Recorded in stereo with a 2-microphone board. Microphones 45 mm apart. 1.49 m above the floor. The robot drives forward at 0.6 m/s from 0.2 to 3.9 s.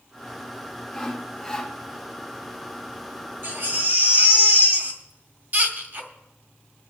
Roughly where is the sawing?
Centre.